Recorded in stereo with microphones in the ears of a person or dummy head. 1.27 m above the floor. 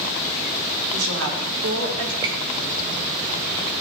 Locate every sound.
0.9 s a woman speaking: 85° right, 4 m; by 2.1 s 80° right, 4 m
2.2 s a squeak: 15° right (ahead or behind), 0.7 m